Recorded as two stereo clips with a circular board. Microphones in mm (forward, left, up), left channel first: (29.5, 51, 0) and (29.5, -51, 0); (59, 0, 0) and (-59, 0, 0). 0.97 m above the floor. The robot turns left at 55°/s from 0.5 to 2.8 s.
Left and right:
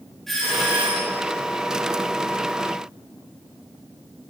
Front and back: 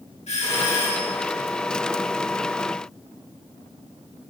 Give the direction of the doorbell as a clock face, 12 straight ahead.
12 o'clock.